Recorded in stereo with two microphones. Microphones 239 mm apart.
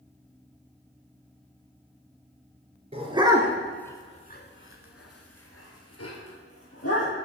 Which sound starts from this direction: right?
A dog barking, at 2.9 s.